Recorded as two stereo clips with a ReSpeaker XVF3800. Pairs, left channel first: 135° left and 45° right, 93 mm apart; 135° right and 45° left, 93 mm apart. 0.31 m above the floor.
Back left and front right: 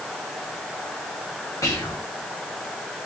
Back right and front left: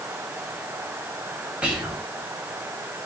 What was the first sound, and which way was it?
Whispering, 115° left.